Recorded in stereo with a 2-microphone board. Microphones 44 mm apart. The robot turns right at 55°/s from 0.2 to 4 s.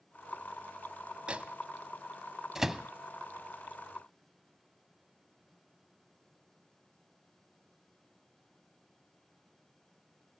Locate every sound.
1.3 s a microwave: 25° right (ahead or behind), 0.8 m; by 2.9 s 5° right (ahead or behind), 0.8 m